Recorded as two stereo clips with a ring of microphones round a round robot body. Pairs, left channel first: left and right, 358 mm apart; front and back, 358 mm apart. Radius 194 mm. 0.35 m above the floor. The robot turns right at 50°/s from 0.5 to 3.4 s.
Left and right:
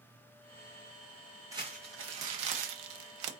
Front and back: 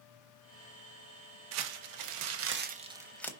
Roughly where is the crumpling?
Behind.